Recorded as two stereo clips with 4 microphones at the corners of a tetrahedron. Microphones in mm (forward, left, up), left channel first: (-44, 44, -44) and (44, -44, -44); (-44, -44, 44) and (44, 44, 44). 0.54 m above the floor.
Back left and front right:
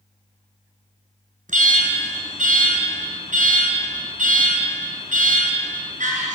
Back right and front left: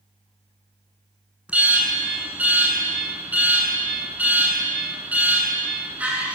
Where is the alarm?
35° right, 6.5 m.